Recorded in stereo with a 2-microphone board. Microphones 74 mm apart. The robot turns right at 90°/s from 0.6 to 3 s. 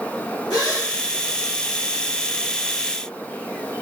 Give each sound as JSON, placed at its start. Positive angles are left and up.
{"t": 0.5, "sound": "a gasp", "side_deg": 60, "distance_m": 2.5}